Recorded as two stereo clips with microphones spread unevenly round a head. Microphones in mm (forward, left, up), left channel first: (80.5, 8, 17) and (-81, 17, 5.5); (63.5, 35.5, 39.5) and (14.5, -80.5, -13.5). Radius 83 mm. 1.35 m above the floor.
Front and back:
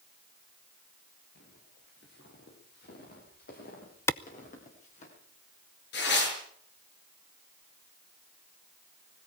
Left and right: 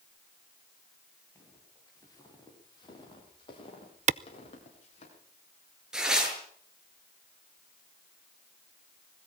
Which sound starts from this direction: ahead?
Footsteps, at 1.4 s.